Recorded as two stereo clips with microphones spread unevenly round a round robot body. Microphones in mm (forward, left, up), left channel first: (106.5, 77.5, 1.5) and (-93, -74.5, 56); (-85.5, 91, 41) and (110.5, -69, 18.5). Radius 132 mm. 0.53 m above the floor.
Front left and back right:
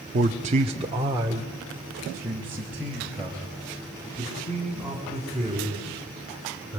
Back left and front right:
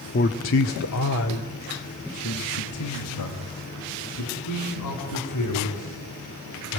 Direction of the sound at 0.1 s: 165° left.